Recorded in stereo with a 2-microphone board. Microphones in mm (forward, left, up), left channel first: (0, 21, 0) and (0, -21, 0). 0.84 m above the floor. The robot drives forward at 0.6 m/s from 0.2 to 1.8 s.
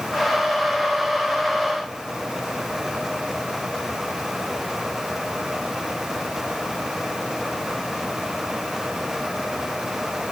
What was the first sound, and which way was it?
Only background noise.